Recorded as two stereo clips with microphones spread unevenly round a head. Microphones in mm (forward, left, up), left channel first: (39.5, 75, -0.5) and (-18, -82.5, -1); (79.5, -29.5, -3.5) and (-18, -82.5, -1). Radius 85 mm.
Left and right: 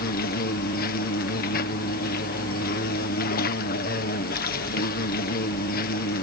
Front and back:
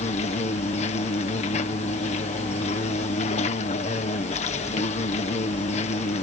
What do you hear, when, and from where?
0.0 s an insect: 45° left